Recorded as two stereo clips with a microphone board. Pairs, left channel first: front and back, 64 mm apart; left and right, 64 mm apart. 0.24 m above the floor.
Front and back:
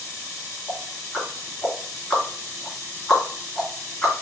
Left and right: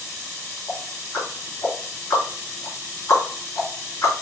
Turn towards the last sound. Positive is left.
turn(degrees=85)